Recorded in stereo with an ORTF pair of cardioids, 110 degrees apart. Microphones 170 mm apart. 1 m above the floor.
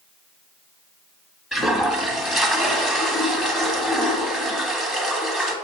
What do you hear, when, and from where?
1.5 s a toilet flushing: straight ahead, 1.3 m